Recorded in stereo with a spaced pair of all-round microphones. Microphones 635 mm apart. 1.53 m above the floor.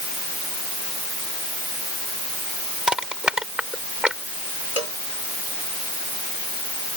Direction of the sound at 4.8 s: 70° left (ahead or behind).